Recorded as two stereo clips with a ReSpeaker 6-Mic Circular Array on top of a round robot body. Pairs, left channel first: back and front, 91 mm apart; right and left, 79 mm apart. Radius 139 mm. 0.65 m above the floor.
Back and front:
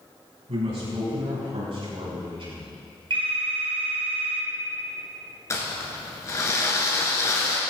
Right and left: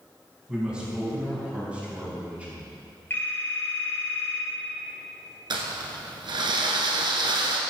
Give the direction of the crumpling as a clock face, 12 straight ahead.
8 o'clock.